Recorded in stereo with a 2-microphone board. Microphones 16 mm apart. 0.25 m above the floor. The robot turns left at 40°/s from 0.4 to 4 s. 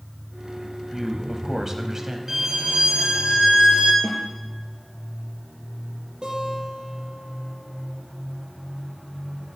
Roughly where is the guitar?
Right.